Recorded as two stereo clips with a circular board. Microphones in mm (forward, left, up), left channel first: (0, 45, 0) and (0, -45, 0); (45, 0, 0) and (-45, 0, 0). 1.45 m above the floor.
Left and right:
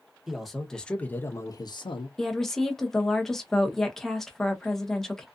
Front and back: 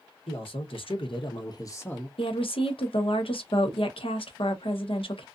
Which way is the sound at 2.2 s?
5° left.